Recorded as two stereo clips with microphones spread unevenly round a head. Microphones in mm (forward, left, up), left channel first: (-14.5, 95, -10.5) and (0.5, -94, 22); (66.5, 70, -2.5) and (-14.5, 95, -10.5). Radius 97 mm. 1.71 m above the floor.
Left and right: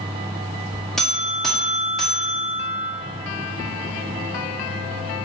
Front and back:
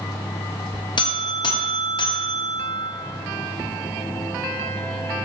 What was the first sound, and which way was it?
A buzzer, 5° left.